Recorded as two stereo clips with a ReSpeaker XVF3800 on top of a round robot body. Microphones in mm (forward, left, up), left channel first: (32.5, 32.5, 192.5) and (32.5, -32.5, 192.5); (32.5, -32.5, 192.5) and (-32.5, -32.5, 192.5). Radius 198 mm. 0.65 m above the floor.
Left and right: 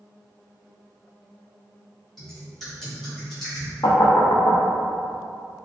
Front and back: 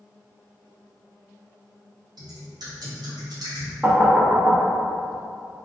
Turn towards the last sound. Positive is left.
turn(degrees=105)